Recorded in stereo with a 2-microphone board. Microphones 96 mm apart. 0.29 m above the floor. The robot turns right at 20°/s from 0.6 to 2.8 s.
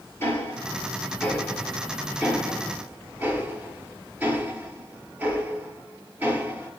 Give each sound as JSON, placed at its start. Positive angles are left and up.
{"t": 0.2, "sound": "ticking", "side_deg": 25, "distance_m": 6.0}